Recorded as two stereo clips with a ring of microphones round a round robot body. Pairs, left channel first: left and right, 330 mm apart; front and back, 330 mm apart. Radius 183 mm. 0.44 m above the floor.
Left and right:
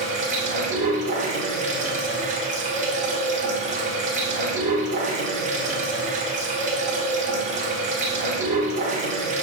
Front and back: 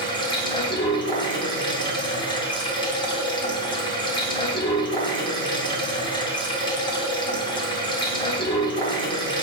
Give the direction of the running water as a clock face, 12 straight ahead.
2 o'clock.